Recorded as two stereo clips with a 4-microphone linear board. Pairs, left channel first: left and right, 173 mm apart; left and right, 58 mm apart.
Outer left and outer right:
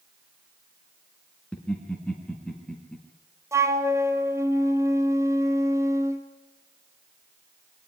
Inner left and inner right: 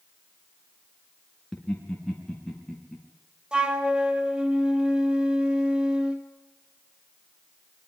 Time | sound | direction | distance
1.5 | laughter | 5° left (ahead or behind) | 3 m
3.5 | a flute | 15° right (ahead or behind) | 2 m